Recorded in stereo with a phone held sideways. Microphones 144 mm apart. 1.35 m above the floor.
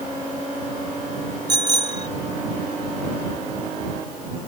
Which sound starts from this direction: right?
A bicycle bell, at 1.5 s.